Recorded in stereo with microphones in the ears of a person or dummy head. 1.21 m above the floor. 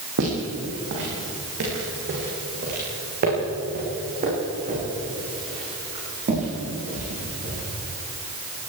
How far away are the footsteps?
About 7.5 m.